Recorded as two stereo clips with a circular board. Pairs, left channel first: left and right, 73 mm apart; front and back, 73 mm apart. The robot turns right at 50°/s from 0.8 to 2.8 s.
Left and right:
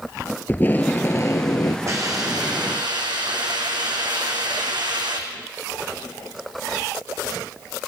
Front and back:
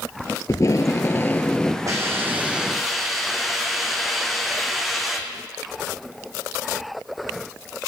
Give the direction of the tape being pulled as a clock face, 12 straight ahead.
11 o'clock.